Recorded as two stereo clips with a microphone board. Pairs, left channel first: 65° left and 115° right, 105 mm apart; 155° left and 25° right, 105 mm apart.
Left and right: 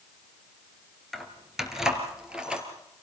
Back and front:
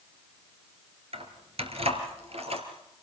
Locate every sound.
1.1 s keys jangling: 20° right, 2.5 m; by 2.6 s 30° right, 3.5 m